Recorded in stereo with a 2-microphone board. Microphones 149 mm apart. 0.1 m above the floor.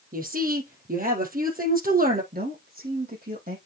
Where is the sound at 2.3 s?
70° right (ahead or behind), 5 m.